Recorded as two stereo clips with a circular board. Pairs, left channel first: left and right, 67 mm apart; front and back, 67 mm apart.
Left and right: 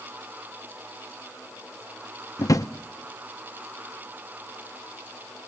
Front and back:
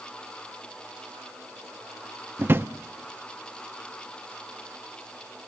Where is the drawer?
125° left, 0.6 m.